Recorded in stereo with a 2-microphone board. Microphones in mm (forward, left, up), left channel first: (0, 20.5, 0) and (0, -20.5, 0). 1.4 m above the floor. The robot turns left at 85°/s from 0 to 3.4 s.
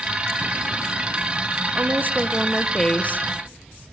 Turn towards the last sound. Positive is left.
turn(degrees=110)